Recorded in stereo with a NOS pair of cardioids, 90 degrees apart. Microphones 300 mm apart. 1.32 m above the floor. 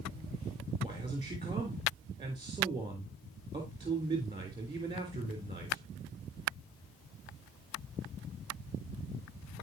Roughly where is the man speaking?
Ahead.